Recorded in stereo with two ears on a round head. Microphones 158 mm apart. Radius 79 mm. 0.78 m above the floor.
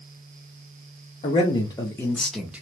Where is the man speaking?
30° left (ahead or behind), 1.0 m; by 2.6 s 10° right (ahead or behind), 0.8 m.